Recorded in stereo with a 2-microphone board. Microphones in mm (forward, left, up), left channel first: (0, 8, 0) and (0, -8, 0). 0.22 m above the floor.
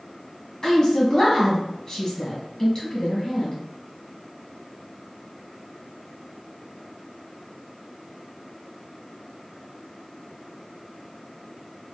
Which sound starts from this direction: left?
A woman speaking, at 0.6 s.